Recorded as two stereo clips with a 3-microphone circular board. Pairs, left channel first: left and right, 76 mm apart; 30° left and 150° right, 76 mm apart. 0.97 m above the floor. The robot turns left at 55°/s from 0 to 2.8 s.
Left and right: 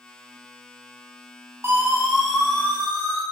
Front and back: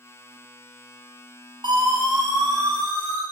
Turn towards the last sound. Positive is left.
turn(degrees=155)